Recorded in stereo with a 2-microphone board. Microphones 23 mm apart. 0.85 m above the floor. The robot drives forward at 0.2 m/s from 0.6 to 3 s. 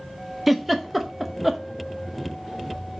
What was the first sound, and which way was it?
A giggle, 5° right (ahead or behind).